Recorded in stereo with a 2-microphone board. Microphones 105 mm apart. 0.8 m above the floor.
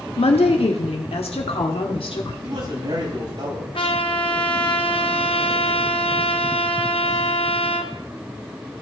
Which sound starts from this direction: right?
A man speaking, at 2.4 s.